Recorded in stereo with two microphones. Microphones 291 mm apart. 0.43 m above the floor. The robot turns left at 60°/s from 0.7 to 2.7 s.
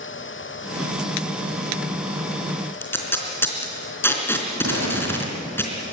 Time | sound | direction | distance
2.8 | tape being pulled | 10° left (ahead or behind) | 3.5 m
4.6 | a pop | 55° right (ahead or behind) | 7.5 m